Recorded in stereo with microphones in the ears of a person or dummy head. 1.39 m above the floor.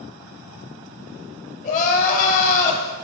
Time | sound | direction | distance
1.6 | crying | 45° left (ahead or behind) | 0.5 m